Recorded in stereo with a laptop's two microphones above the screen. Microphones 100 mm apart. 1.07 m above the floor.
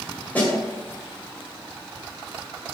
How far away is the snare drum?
About 2 m.